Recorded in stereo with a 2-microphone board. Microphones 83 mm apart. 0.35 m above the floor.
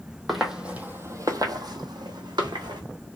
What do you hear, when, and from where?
0.3 s footsteps: centre (ahead or behind), 0.6 m; by 2.8 s 65° right (ahead or behind), 1.1 m